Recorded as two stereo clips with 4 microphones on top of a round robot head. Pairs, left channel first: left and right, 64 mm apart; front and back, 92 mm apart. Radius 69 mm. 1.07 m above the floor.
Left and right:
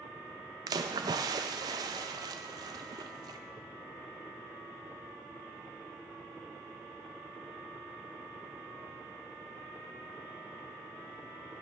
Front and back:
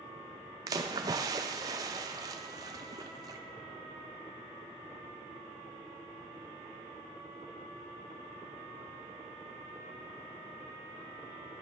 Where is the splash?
120° right, 0.5 m.